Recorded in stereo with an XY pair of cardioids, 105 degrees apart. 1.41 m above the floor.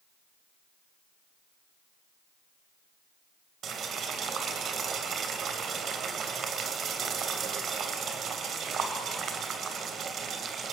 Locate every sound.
3.6 s boiling: 60° right, 3 m